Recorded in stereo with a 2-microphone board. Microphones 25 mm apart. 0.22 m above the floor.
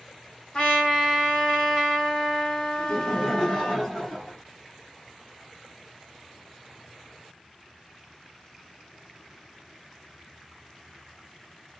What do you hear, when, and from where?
0.5 s a trumpet: 40° left (ahead or behind), 1.3 m
2.8 s laughter: 25° left (ahead or behind), 1.4 m